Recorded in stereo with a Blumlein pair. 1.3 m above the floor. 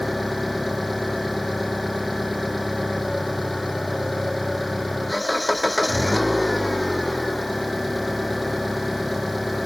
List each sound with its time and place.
0.0 s an engine running: straight ahead